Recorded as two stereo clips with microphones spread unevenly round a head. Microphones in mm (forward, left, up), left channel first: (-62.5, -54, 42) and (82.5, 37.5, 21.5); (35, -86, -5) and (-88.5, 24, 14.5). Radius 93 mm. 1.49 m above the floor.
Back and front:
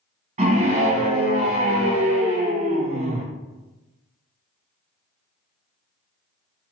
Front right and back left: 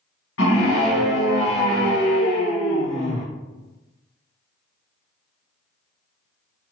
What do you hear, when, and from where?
0.4 s a scream: 20° right, 1.9 m